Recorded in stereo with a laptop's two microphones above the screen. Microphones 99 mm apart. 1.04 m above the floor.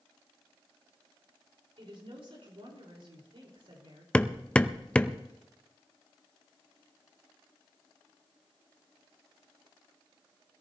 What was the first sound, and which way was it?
A woman speaking, 65° right (ahead or behind).